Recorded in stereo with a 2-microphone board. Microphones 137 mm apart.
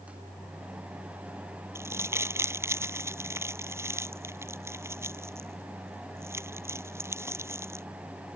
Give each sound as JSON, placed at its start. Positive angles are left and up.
{"t": 1.8, "sound": "crumpling", "side_deg": -20}